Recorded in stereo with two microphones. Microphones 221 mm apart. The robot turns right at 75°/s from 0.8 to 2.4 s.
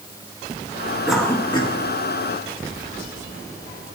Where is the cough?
5° right (ahead or behind), 2 m; by 4.0 s 45° left (ahead or behind), 2 m.